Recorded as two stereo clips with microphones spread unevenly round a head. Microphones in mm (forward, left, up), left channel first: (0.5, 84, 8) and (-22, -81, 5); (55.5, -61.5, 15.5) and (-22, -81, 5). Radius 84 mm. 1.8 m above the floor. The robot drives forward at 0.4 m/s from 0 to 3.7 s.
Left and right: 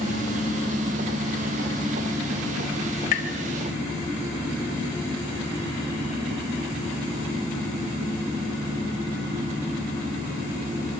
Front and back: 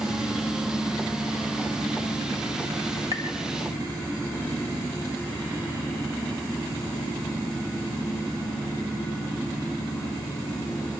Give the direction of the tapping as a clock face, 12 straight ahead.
8 o'clock.